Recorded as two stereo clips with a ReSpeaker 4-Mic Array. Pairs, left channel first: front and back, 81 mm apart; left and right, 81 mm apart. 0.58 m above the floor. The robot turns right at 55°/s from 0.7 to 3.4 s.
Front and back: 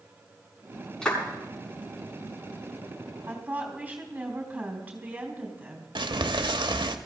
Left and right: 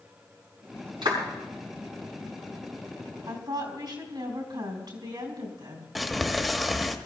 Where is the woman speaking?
115° right, 4 m; by 5.8 s 110° right, 4 m.